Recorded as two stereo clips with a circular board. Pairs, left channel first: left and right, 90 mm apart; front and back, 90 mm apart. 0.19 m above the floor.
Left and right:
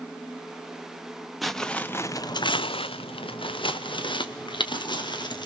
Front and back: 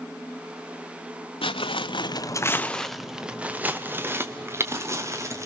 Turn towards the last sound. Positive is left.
turn(degrees=125)